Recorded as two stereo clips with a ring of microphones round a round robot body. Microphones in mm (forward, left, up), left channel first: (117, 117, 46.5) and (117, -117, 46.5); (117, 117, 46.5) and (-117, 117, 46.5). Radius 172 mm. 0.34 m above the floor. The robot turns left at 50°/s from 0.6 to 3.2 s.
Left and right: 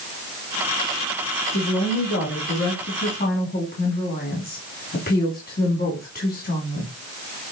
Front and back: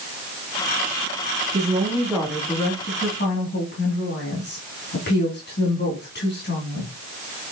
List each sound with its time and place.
1.5 s a woman speaking: 125° left, 2.5 m; by 6.9 s 40° left, 2.5 m